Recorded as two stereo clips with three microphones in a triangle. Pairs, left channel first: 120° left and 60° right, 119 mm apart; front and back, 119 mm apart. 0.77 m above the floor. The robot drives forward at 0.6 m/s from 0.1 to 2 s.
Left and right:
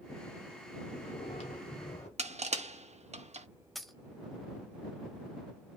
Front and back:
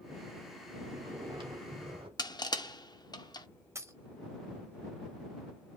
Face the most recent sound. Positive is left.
turn(degrees=-150)